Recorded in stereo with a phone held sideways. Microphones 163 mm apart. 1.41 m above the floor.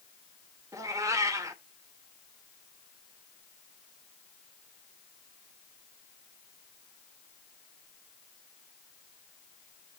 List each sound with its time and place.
0.7 s a cat meowing: 20° right (ahead or behind), 0.9 m